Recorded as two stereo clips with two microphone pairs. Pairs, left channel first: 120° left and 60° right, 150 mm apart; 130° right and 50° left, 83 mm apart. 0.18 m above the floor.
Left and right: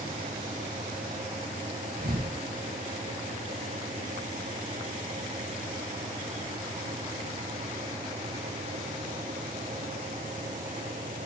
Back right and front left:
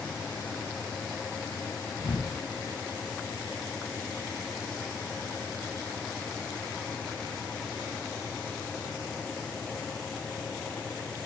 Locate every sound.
2.0 s a thud: 70° right, 7.5 m